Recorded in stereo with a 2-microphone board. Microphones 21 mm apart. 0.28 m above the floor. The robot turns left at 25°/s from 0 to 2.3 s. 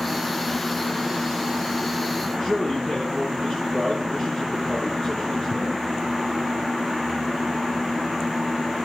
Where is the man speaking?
5° left (ahead or behind), 5.5 m.